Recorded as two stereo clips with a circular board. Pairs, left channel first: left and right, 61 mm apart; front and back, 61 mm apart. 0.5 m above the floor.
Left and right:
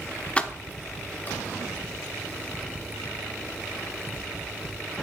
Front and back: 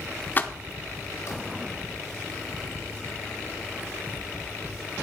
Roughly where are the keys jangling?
Ahead left.